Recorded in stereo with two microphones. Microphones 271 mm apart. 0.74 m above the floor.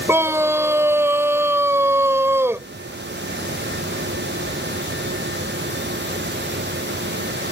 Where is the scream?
10° right (ahead or behind).